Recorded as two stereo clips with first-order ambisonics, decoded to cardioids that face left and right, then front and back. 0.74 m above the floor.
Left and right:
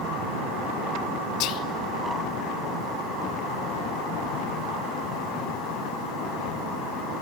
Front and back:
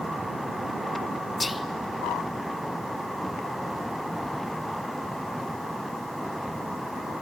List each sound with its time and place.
1.4 s whispering: 75° left, 0.7 m